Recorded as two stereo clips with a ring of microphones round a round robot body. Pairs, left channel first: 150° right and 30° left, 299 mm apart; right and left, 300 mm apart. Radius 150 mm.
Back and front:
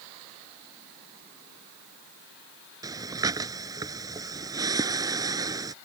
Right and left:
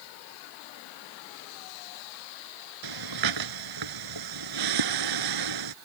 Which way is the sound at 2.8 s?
110° left.